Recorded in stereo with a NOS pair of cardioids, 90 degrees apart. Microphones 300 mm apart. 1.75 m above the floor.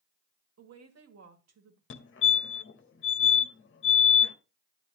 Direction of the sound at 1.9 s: 40° left.